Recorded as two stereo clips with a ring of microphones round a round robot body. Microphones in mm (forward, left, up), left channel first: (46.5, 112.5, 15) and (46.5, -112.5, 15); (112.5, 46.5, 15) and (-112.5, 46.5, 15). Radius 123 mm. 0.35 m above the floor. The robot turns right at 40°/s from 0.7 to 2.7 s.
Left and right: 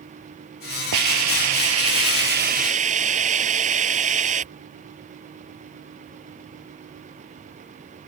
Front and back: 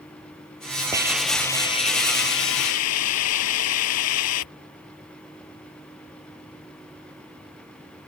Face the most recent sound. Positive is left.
turn(degrees=-30)